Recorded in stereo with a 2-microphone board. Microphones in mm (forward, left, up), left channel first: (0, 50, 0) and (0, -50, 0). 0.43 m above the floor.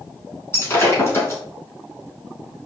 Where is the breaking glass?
30° left (ahead or behind), 3 m.